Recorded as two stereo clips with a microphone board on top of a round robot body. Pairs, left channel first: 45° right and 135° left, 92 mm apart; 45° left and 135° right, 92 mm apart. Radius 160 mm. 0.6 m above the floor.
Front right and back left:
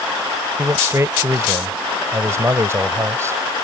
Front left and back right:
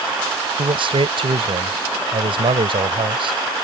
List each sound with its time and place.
0.6 s a man speaking: 165° right